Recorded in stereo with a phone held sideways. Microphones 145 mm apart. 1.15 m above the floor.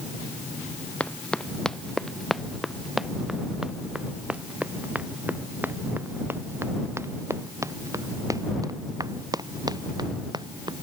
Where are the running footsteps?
10° left (ahead or behind); by 10.7 s 30° right (ahead or behind).